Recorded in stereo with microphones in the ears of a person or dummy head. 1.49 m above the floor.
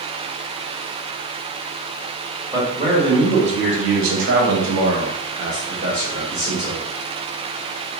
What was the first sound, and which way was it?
A man speaking, 25° right (ahead or behind).